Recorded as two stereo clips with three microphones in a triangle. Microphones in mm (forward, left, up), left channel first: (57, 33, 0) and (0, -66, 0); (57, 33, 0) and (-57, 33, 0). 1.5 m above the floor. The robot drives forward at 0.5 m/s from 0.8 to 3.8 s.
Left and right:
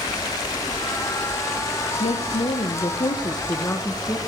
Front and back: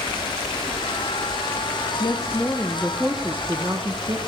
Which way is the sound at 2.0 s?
55° left.